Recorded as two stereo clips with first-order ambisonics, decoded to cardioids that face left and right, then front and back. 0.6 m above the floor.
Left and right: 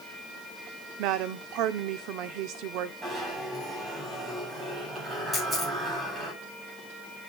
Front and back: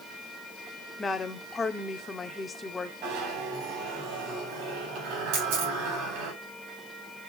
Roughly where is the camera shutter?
Behind.